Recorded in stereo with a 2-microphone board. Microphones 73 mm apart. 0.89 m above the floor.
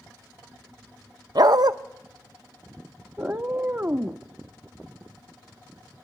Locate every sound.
1.4 s a dog barking: 60° right (ahead or behind), 0.5 m
3.2 s a cat meowing: 25° right (ahead or behind), 0.5 m